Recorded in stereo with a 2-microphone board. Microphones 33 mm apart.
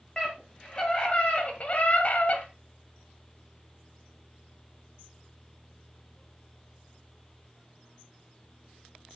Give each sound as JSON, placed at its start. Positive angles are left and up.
{"t": 0.2, "sound": "a scream", "side_deg": 20, "distance_m": 2.0}